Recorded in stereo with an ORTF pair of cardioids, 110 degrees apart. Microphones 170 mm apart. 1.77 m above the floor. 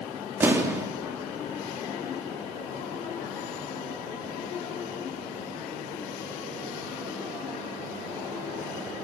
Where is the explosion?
15° right, 4 m.